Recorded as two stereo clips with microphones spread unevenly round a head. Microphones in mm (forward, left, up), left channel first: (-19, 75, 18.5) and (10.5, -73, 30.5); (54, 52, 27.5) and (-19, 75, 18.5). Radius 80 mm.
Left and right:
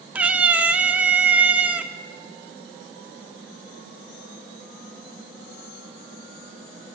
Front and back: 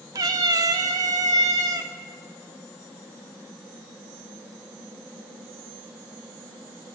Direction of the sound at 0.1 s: 150° right.